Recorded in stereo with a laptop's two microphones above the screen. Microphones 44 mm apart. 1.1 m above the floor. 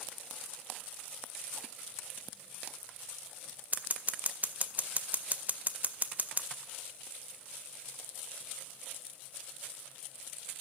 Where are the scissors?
40° right (ahead or behind), 0.5 m.